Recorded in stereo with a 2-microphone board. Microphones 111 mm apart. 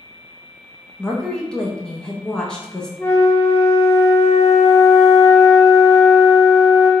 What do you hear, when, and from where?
1.0 s a woman speaking: 5° left (ahead or behind), 0.6 m
3.0 s a flute: 20° left (ahead or behind), 0.6 m